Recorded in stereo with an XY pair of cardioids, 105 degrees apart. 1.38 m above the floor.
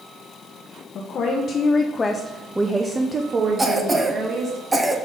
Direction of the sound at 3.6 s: 20° right.